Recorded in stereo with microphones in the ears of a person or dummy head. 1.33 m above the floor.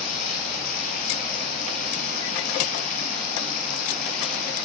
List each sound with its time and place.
0.0 s running water: 60° left (ahead or behind), 5.5 m